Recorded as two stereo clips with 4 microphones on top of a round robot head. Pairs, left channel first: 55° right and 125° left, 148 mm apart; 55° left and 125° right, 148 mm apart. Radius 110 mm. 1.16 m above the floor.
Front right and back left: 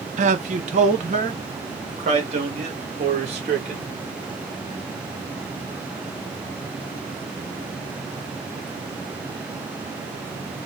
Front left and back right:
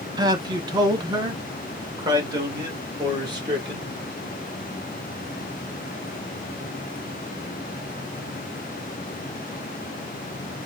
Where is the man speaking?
170° left, 0.8 m.